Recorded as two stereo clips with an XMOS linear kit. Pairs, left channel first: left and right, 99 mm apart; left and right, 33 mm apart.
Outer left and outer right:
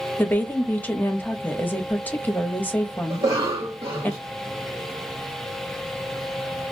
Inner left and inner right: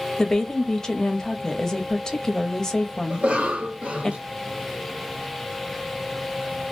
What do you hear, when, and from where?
0.2 s a woman speaking: 15° left (ahead or behind), 0.9 m
3.1 s a cough: 65° right (ahead or behind), 0.9 m